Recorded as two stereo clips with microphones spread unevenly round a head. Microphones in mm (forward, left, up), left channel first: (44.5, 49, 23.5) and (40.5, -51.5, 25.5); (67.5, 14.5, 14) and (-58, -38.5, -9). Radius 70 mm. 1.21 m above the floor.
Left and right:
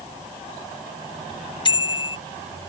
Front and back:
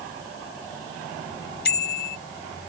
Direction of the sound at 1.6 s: 45° left.